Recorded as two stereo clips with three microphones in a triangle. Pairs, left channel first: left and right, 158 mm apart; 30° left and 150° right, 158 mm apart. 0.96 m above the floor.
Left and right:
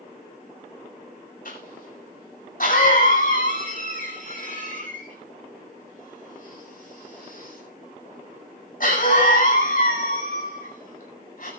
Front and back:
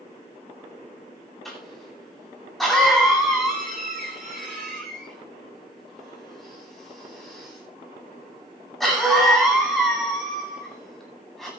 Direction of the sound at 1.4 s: 120° left.